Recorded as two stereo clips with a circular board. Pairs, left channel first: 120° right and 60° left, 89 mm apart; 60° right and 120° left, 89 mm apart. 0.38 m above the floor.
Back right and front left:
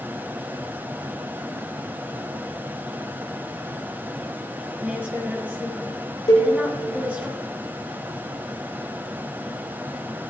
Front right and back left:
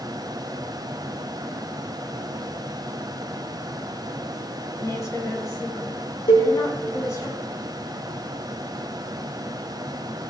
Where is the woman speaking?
10° right, 4 m.